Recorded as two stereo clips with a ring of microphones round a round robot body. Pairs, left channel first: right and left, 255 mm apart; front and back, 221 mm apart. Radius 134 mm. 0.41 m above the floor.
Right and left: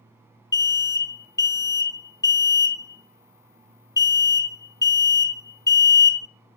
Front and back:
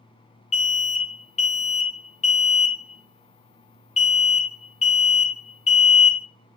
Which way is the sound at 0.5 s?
25° right.